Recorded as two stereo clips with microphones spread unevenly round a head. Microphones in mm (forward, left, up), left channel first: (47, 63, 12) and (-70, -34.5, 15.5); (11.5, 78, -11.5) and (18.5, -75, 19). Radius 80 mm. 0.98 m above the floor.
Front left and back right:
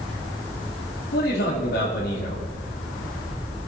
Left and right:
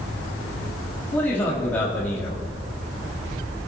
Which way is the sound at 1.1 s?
15° left.